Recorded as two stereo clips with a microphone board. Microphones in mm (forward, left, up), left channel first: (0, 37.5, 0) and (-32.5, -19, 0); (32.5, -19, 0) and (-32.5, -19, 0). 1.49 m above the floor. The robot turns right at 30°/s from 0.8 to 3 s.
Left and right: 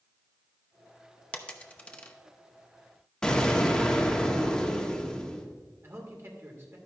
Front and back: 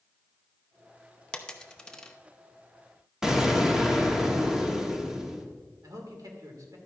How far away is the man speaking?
About 2.5 m.